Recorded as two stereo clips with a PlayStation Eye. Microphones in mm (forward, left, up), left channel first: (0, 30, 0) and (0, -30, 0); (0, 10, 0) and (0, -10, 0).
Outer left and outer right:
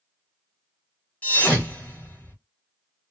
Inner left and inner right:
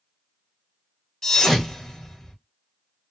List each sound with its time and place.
1.2 s a thud: 25° left (ahead or behind), 1.4 m